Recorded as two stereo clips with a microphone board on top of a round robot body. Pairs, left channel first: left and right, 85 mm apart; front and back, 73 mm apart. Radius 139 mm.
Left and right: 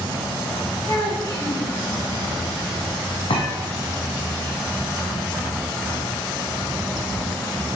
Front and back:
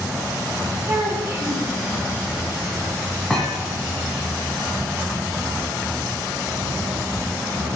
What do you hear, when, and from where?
0.9 s a child speaking: 125° left, 3.5 m
3.3 s a thud: 85° left, 1.6 m